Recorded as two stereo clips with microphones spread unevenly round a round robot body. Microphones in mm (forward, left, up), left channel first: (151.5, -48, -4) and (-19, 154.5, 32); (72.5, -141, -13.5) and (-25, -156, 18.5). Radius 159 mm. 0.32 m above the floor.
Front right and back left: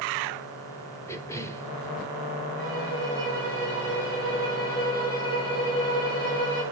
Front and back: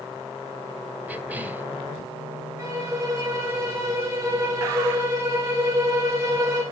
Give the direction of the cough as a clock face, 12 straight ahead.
2 o'clock.